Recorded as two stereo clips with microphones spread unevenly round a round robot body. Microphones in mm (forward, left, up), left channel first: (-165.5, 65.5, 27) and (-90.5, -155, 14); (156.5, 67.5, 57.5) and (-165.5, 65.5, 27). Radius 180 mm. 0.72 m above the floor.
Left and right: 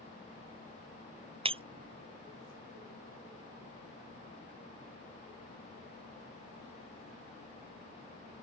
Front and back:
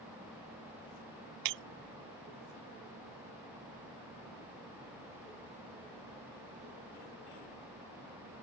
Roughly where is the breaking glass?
Behind right.